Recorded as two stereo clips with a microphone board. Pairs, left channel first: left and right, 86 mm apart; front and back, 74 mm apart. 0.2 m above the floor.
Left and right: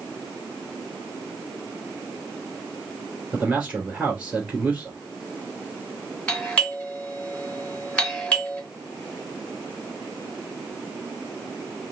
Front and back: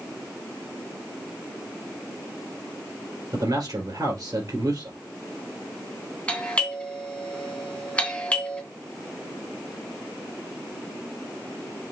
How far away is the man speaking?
About 3 m.